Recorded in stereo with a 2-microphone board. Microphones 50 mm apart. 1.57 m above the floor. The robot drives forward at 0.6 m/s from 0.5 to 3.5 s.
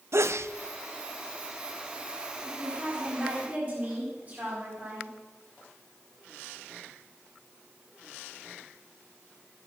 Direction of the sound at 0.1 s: 65° right (ahead or behind).